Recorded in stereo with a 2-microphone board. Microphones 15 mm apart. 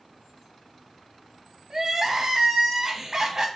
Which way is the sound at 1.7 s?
35° right (ahead or behind).